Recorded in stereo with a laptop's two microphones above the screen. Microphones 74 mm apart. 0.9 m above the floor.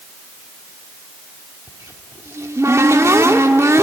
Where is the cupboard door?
40° right (ahead or behind), 1.6 m.